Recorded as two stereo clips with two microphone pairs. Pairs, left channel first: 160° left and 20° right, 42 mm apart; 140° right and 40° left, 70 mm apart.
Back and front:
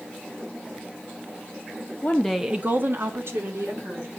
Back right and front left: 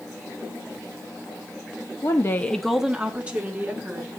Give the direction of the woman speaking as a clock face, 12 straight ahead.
5 o'clock.